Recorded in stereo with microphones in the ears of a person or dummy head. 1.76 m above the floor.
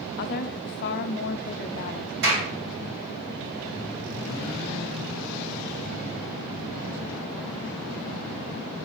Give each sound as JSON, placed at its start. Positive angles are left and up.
{"t": 0.2, "sound": "a woman speaking", "side_deg": 60, "distance_m": 0.7}
{"t": 2.2, "sound": "a clap", "side_deg": -60, "distance_m": 3.5}